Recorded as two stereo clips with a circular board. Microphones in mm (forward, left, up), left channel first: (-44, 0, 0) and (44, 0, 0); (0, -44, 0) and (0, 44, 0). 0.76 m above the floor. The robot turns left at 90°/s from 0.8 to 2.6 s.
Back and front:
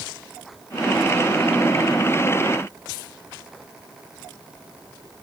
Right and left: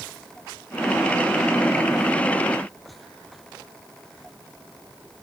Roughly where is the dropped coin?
No dropped coin in this recording.